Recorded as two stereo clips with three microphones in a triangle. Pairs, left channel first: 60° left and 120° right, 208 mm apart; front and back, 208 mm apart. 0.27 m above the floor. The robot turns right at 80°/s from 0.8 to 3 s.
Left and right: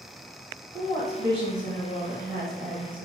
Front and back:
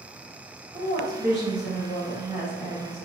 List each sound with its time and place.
0.7 s a woman speaking: 120° left, 1.9 m; by 3.1 s 65° right, 1.9 m